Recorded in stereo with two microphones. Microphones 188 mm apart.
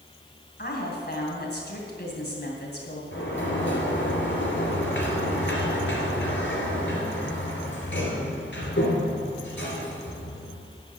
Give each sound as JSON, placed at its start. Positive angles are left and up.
{"t": 0.6, "sound": "a woman speaking", "side_deg": 55, "distance_m": 2.5}
{"t": 3.1, "sound": "a sliding door", "side_deg": 75, "distance_m": 2.5}